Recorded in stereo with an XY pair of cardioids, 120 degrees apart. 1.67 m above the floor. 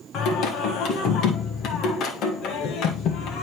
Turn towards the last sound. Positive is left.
turn(degrees=70)